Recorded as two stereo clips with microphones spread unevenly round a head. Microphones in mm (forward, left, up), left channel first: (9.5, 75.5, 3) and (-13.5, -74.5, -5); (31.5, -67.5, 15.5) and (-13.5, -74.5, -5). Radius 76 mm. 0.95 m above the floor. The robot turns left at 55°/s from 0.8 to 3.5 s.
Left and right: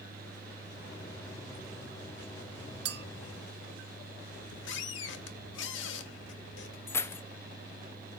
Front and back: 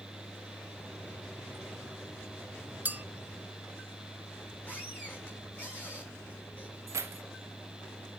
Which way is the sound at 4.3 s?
85° left.